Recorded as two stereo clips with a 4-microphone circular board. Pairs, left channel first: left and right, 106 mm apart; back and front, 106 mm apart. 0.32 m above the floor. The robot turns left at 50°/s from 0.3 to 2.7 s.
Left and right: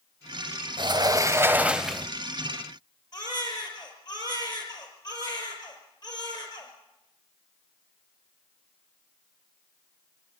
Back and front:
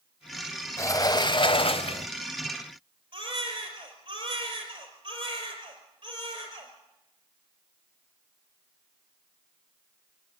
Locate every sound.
0.8 s a sliding door: 120° right, 0.6 m; by 2.1 s 170° left, 0.6 m
3.1 s a baby crying: 40° left, 4.5 m